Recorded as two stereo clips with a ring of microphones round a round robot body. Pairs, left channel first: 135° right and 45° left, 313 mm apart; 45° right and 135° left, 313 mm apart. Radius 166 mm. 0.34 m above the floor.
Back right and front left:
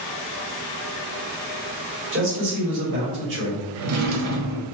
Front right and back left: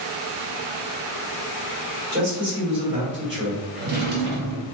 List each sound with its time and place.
2.1 s a man speaking: 90° left, 1.9 m
3.7 s a drawer: 80° left, 0.9 m